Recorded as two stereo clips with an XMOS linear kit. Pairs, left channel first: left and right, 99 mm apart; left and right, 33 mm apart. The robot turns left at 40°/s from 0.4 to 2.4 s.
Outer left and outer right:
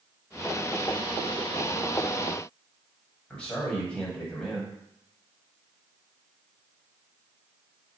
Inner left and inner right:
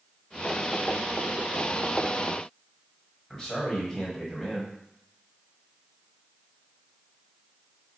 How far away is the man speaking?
About 1.3 m.